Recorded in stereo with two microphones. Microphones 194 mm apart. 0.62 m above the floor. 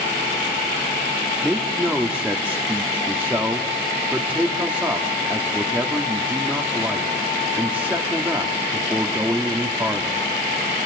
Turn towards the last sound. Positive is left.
turn(degrees=-5)  # may be behind; listen again after turning